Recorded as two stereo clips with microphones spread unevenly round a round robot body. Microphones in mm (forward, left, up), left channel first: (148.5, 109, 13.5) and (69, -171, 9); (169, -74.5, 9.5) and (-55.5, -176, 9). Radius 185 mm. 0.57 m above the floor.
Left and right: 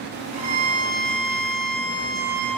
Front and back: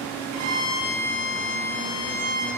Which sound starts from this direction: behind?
A violin, at 0.3 s.